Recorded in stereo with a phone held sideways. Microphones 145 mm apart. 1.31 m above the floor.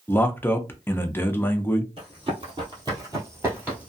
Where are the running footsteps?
40° right (ahead or behind), 1.7 m; by 3.9 s 10° right (ahead or behind), 1.3 m.